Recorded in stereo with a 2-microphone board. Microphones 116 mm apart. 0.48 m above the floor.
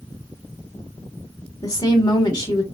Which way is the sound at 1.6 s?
35° left (ahead or behind).